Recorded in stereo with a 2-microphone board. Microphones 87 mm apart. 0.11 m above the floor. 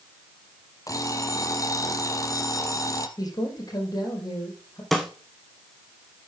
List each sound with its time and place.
0.9 s an alarm clock: 40° left (ahead or behind), 1.4 m
3.2 s a man speaking: 45° left (ahead or behind), 5 m
4.9 s a snare drum: 5° left (ahead or behind), 1.5 m